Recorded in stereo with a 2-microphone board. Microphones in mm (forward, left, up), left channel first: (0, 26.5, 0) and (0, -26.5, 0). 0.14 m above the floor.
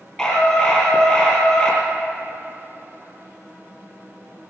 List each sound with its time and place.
0.2 s a scream: 20° left (ahead or behind), 3 m